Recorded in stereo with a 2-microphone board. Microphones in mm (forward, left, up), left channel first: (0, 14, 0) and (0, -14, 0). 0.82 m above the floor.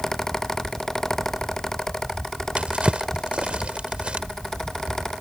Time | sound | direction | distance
2.6 | a drawer | 40° right (ahead or behind) | ?